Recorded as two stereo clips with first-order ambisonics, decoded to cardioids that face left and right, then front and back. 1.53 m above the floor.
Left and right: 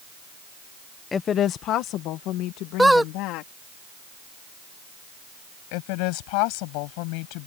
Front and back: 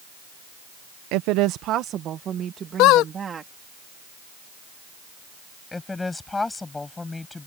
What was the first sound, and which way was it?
A woman speaking, 165° left.